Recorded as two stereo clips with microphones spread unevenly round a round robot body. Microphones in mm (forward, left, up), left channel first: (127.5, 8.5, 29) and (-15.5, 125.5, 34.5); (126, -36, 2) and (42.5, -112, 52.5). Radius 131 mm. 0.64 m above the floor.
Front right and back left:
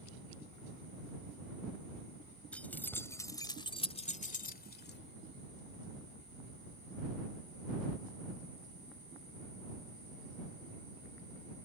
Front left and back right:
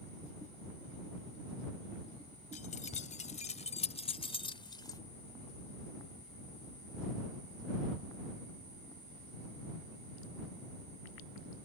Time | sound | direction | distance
2.5 | keys jangling | 45° left | ?